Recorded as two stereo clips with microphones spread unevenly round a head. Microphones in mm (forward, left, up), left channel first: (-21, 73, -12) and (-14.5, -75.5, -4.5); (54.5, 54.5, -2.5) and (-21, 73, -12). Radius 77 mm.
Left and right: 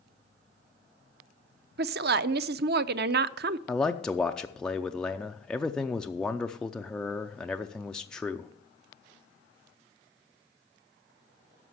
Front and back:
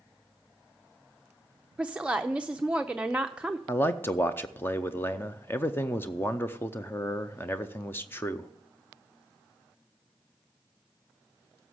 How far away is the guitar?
I don't hear a guitar.